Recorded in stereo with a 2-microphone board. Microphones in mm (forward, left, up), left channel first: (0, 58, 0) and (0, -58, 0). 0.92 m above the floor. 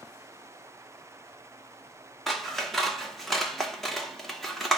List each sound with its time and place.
2.3 s scissors: centre (ahead or behind), 0.9 m